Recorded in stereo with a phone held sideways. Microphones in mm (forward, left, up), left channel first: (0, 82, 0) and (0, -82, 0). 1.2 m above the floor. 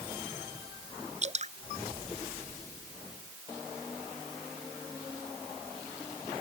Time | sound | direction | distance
1.2 | dripping | 45° right (ahead or behind) | ?